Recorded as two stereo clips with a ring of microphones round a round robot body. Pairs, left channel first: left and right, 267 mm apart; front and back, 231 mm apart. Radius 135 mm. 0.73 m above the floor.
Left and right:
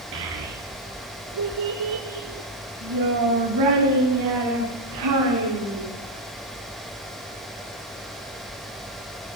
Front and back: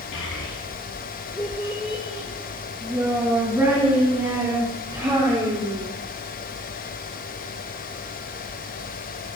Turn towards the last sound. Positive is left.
turn(degrees=-105)